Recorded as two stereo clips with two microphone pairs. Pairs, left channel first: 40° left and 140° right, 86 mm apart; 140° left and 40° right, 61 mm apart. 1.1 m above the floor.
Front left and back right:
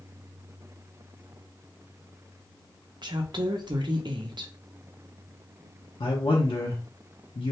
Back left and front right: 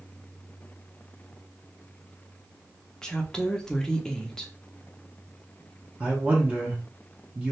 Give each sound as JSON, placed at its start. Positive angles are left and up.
{"t": 3.0, "sound": "a woman speaking", "azimuth_deg": -145, "distance_m": 0.6}
{"t": 6.0, "sound": "a man speaking", "azimuth_deg": 35, "distance_m": 0.6}